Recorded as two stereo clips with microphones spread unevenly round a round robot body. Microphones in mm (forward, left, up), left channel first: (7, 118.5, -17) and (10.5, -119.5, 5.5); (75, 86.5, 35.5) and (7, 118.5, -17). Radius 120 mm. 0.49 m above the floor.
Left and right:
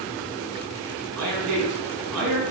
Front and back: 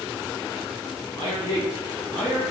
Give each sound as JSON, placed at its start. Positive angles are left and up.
{"t": 1.2, "sound": "a man speaking", "azimuth_deg": -120, "distance_m": 3.5}